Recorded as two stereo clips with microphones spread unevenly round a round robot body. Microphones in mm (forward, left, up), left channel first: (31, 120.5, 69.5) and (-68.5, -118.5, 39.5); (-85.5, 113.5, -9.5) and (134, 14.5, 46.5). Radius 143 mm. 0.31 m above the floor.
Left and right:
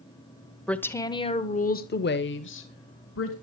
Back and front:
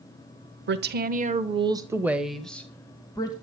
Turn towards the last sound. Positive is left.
turn(degrees=95)